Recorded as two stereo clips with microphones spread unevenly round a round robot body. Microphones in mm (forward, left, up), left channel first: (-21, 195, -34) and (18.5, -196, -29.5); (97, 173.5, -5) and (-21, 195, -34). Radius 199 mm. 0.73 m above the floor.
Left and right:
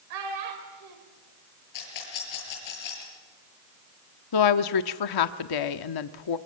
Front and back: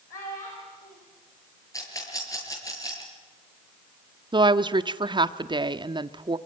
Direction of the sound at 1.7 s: 50° left.